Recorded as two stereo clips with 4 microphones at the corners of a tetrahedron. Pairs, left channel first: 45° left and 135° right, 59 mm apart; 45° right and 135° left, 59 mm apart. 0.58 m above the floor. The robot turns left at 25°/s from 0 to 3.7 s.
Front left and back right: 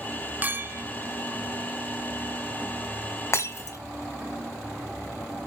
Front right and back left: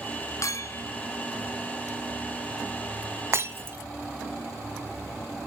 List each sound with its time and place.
0.4 s a clink: 75° right, 0.6 m; by 0.8 s 85° right, 0.6 m
3.3 s breaking glass: 90° left, 1.5 m; by 3.8 s 80° left, 1.5 m